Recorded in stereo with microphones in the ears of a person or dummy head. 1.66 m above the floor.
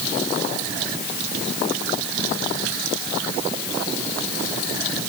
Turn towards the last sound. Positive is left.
No sound to turn to.